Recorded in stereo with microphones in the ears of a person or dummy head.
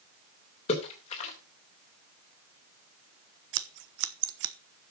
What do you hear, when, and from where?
0.7 s a splash: 35° left (ahead or behind), 3 m
3.5 s scissors: 65° right (ahead or behind), 0.7 m